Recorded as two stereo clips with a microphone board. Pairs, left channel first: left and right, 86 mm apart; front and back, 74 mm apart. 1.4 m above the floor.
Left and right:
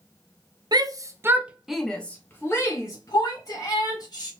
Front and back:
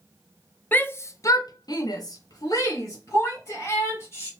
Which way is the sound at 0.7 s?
65° right.